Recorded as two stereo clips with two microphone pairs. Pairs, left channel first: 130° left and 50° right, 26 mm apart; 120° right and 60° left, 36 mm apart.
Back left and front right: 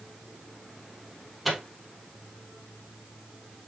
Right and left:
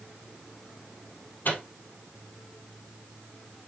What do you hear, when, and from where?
1.4 s a microwave: 140° right, 2.5 m